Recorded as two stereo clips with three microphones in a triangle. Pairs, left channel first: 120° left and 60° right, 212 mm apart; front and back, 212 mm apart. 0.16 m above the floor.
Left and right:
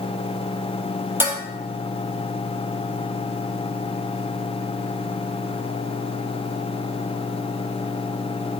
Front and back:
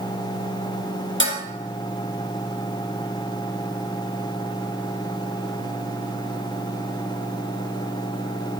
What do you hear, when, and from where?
1.2 s dishes clattering: 20° left, 2.5 m